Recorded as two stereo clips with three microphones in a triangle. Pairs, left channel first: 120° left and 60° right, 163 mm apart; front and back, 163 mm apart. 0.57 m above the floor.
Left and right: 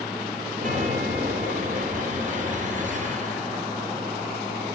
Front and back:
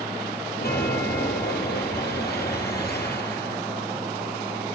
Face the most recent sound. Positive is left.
turn(degrees=-20)